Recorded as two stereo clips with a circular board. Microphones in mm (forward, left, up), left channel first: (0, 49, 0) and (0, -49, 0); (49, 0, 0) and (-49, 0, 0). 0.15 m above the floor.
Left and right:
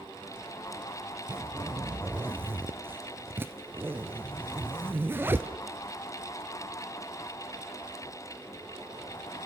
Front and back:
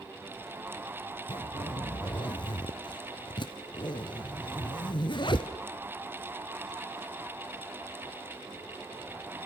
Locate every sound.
1.3 s a zipper: 25° right, 1.5 m